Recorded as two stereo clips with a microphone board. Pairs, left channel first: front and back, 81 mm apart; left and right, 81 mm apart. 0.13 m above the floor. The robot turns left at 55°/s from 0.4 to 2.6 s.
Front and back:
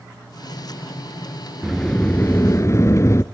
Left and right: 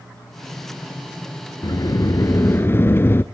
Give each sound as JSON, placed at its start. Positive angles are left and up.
{"t": 1.6, "sound": "a sliding door", "azimuth_deg": 90, "distance_m": 0.8}